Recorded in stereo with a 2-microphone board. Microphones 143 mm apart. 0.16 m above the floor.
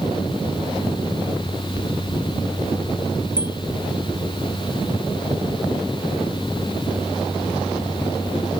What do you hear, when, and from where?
3.4 s a bicycle bell: 80° right